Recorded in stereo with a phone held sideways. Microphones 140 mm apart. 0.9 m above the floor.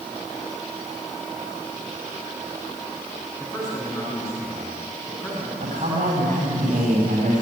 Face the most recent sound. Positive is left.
turn(degrees=-65)  # may be behind; listen again after turning